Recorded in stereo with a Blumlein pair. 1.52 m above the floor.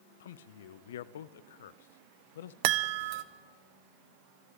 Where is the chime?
45° right, 0.7 m.